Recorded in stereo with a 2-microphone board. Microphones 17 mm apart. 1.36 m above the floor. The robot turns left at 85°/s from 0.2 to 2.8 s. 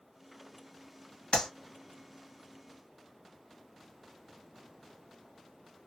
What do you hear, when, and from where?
1.3 s a clap: 70° left (ahead or behind), 1.5 m; by 1.5 s 60° left (ahead or behind), 1.5 m